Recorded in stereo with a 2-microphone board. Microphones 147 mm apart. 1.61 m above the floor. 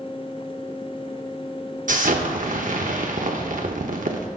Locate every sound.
1.9 s an explosion: 65° right (ahead or behind), 0.8 m